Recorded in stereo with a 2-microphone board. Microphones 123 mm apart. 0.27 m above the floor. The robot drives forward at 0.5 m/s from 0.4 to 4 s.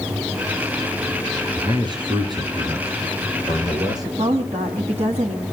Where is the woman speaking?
60° right (ahead or behind), 2.5 m.